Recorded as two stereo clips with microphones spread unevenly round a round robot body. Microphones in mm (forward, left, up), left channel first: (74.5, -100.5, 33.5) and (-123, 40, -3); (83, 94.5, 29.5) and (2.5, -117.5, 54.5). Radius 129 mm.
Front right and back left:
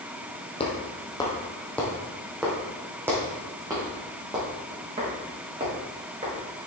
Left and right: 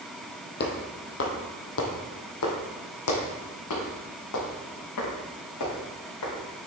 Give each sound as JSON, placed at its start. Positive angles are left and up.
{"t": 0.6, "sound": "footsteps", "azimuth_deg": 25, "distance_m": 1.8}